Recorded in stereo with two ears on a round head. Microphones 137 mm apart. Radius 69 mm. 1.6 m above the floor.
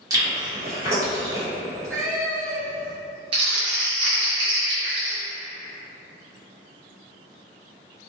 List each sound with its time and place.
0.1 s chewing: 20° right (ahead or behind), 1.0 m
1.6 s a cat meowing: 20° right (ahead or behind), 1.1 m
3.3 s crumpling: 35° right (ahead or behind), 0.8 m